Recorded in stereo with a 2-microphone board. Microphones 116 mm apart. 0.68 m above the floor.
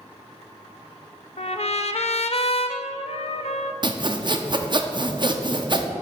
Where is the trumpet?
65° left (ahead or behind), 0.6 m.